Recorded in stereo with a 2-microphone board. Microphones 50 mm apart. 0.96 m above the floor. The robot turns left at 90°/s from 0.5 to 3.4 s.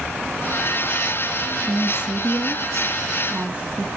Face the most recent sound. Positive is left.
turn(degrees=-150)